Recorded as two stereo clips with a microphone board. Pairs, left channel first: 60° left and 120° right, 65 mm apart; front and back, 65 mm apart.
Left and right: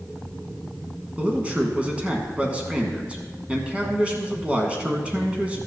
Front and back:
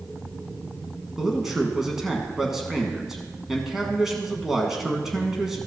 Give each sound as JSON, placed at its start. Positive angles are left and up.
{"t": 1.2, "sound": "a man speaking", "azimuth_deg": -110, "distance_m": 1.1}